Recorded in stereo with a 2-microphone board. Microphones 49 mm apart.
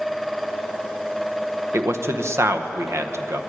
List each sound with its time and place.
1.7 s a man speaking: 60° right (ahead or behind), 0.9 m